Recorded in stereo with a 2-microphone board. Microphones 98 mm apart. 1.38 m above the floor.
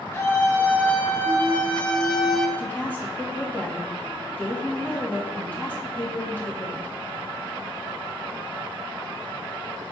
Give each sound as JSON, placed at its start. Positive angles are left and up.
{"t": 0.1, "sound": "a scream", "side_deg": 25, "distance_m": 3.0}
{"t": 2.6, "sound": "a woman speaking", "side_deg": 20, "distance_m": 2.5}